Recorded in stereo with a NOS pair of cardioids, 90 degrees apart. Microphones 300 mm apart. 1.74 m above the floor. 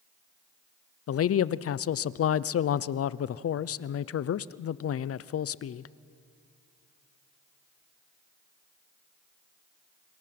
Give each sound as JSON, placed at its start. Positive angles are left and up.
{"t": 1.1, "sound": "a man speaking", "azimuth_deg": 50, "distance_m": 0.9}